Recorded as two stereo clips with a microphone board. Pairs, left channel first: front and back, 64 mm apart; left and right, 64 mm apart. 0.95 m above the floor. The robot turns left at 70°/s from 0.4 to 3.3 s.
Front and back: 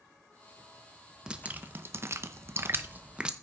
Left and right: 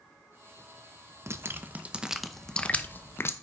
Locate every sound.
1.3 s dripping: 110° right, 0.7 m; by 3.3 s 105° left, 0.7 m